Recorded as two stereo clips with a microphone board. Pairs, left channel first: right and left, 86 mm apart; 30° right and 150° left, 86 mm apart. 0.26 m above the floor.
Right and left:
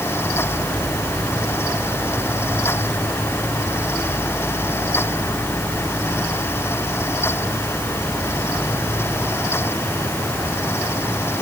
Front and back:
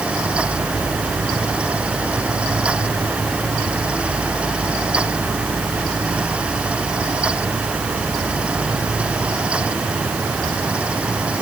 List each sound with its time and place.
Only background noise.